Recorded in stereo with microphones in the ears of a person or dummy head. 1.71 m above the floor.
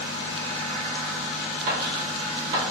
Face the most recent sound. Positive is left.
turn(degrees=-40)  # may be behind; listen again after turning